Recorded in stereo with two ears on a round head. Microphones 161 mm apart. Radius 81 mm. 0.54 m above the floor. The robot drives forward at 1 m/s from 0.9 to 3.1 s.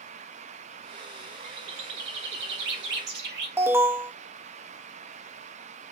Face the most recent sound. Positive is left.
turn(degrees=-15)  # may be behind; listen again after turning